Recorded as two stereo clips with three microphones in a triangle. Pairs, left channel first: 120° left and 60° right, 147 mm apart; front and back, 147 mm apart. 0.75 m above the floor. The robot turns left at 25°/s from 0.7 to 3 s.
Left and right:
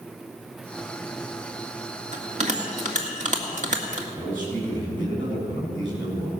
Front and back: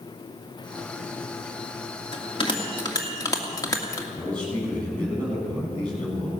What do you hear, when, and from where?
2.1 s a bell: 40° right, 1.9 m; by 4.0 s 60° right, 1.9 m
4.2 s a man speaking: 85° right, 6.5 m